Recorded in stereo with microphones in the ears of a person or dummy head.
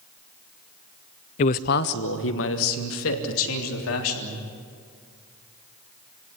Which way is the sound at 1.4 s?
30° left (ahead or behind).